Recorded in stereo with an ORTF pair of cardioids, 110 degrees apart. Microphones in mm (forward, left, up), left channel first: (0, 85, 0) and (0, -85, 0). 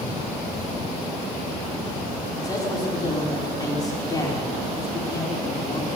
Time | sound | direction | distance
2.4 | a man speaking | 20° left | 4.5 m